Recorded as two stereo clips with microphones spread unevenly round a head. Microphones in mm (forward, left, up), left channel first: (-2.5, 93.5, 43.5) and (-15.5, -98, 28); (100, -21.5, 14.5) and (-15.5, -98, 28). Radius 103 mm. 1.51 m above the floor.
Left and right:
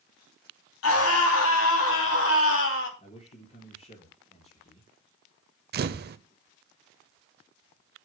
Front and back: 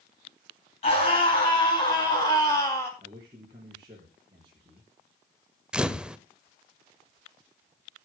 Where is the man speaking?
140° left, 4 m.